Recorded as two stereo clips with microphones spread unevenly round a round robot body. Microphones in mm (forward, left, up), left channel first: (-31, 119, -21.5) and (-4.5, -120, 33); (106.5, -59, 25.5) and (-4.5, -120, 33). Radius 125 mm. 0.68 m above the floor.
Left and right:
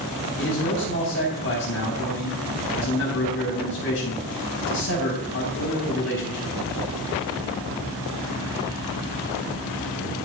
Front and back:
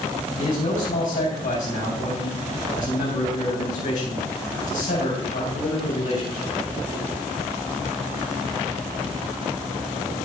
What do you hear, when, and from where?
0.4 s a man speaking: 55° left, 4 m